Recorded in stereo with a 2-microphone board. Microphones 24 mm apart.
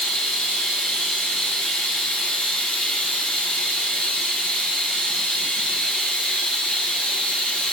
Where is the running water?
60° left (ahead or behind), 1.0 m.